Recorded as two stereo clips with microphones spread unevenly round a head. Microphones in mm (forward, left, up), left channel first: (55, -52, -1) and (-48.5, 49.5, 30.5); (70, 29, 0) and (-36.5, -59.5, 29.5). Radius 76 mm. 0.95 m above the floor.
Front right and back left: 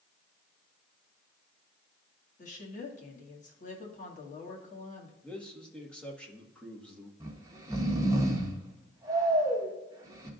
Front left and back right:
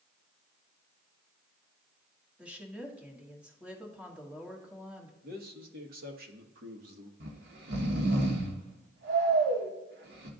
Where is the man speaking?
120° right, 1.4 m.